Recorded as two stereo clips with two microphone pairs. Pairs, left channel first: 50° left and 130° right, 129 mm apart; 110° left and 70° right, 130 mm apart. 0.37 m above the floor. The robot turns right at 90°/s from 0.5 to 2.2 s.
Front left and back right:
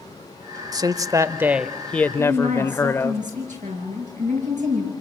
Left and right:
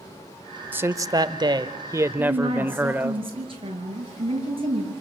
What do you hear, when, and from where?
0.7 s a man speaking: 140° right, 0.9 m; by 3.2 s 5° right, 0.9 m
2.2 s a woman speaking: 120° right, 7.5 m; by 4.9 s 115° right, 7.5 m